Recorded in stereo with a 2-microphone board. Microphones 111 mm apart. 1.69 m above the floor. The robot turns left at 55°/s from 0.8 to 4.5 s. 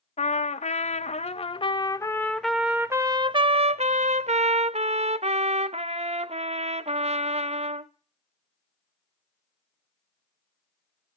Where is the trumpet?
95° left, 0.6 m; by 7.9 s 110° right, 0.6 m.